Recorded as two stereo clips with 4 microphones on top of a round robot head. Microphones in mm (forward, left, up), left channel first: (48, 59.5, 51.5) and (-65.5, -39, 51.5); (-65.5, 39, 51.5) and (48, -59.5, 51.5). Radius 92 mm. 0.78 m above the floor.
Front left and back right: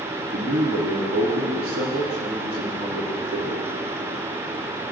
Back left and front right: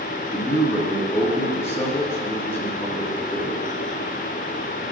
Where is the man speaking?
150° right, 1.4 m.